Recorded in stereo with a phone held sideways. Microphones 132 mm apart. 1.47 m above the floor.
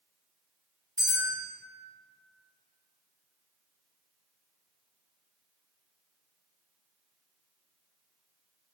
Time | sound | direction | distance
1.0 | a bell | 30° right (ahead or behind) | 1.1 m